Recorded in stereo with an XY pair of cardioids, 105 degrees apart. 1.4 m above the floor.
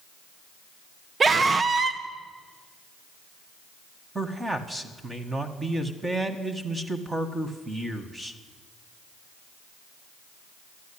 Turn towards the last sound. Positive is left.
turn(degrees=-20)